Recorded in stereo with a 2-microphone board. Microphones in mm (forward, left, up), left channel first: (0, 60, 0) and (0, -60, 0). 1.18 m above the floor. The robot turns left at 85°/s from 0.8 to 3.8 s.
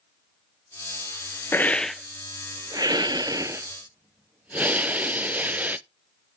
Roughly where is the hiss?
Ahead left.